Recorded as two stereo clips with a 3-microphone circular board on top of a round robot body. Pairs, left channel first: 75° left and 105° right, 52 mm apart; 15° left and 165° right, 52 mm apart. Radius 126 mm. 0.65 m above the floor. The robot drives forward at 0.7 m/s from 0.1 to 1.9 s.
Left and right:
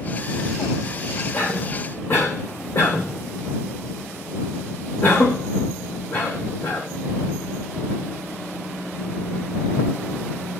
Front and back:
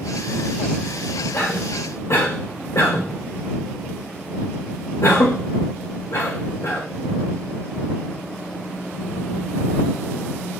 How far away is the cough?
About 3.5 m.